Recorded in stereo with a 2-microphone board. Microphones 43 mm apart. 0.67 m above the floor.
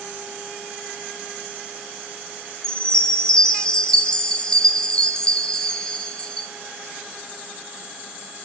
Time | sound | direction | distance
2.6 | a chime | 20° left (ahead or behind) | 0.8 m